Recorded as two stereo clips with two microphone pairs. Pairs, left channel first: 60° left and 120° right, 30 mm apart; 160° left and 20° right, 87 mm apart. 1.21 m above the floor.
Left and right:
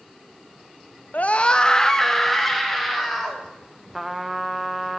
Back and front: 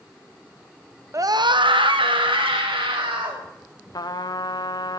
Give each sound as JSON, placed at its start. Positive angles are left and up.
{"t": 1.1, "sound": "a scream", "azimuth_deg": 30, "distance_m": 0.6}
{"t": 3.9, "sound": "a trumpet", "azimuth_deg": 150, "distance_m": 0.6}